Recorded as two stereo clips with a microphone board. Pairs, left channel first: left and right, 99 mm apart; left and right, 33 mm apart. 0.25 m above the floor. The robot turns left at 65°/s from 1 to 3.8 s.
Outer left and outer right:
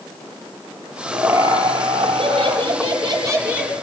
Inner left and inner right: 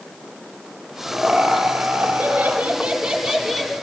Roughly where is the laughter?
Ahead.